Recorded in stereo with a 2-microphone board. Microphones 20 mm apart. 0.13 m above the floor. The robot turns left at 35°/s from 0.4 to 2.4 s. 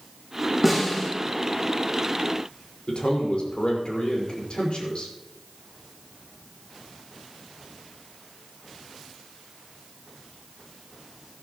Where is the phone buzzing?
I don't hear a phone buzzing.